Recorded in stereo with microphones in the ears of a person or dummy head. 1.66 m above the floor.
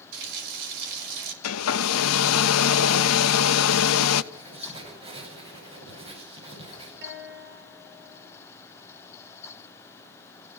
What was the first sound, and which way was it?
A running tap, 75° right (ahead or behind).